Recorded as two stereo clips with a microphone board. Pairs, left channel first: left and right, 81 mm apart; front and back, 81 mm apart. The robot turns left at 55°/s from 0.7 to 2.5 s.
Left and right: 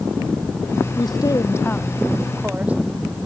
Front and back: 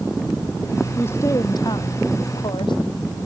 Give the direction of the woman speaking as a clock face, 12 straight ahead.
10 o'clock.